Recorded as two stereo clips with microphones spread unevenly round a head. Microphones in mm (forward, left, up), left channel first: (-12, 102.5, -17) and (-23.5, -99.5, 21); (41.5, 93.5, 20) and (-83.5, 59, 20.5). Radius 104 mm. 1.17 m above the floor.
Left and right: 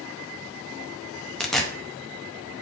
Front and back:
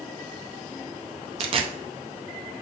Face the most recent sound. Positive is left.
turn(degrees=-175)